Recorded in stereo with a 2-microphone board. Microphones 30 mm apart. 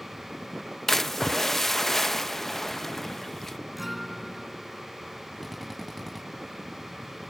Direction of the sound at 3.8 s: 5° right (ahead or behind).